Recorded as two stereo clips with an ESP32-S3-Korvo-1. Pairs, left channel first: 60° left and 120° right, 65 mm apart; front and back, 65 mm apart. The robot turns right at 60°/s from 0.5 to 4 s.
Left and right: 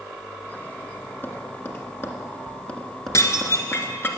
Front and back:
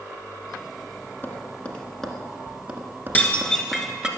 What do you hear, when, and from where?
1.2 s tapping: 30° left, 1.5 m; by 4.1 s 160° right, 1.5 m
3.1 s dishes clattering: 55° left, 1.3 m; by 4.1 s 105° left, 1.3 m